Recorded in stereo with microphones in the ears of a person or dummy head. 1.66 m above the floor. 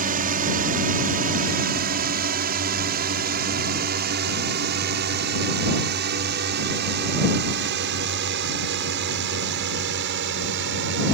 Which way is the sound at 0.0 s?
45° right (ahead or behind).